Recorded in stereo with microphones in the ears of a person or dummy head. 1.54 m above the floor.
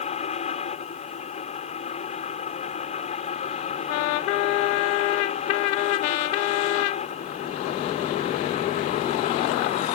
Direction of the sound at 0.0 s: 35° left (ahead or behind).